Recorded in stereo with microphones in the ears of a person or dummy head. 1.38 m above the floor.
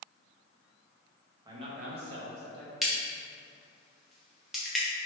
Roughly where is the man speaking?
Right.